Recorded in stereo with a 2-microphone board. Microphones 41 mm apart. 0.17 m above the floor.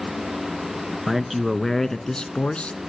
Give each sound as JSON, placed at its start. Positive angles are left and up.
{"t": 1.1, "sound": "a man speaking", "side_deg": -10, "distance_m": 1.9}